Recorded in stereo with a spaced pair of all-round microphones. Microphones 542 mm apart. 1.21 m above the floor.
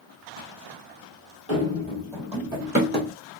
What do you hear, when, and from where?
1.5 s running footsteps: 25° left (ahead or behind), 1.4 m; by 3.1 s 20° right (ahead or behind), 1.7 m